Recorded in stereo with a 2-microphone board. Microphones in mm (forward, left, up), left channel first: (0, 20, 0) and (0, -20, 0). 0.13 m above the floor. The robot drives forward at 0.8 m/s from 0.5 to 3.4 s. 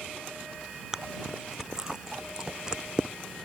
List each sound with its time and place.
0.9 s chewing: 15° right (ahead or behind); by 3.1 s 20° right (ahead or behind)